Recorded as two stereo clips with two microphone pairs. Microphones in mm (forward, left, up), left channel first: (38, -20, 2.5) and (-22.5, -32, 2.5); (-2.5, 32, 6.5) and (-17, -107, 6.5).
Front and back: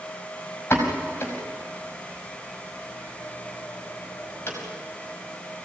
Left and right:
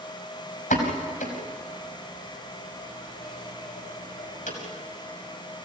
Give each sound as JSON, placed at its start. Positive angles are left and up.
{"t": 0.7, "sound": "a pop", "azimuth_deg": 65, "distance_m": 5.0}